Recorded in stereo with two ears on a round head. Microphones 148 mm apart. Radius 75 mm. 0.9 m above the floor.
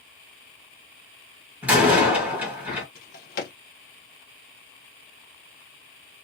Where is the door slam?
10° right (ahead or behind), 1.6 m.